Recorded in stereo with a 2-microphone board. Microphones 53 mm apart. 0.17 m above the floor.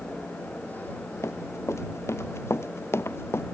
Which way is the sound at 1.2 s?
65° left (ahead or behind).